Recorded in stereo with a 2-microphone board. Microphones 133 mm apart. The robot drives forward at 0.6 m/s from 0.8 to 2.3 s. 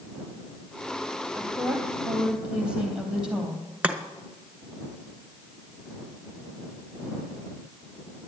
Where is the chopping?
10° right (ahead or behind), 1.1 m.